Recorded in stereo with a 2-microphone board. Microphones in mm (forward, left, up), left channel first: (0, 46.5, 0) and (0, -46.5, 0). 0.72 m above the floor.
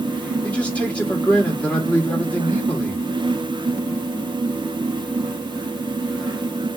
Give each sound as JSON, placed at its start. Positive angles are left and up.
{"t": 0.4, "sound": "a man speaking", "side_deg": 15, "distance_m": 2.5}